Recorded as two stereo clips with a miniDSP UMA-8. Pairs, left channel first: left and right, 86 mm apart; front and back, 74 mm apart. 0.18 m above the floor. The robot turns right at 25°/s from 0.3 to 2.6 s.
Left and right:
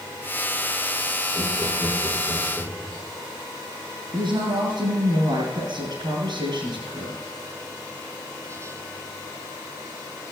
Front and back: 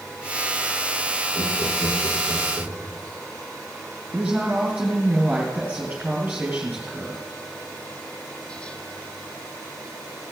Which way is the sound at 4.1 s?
110° right.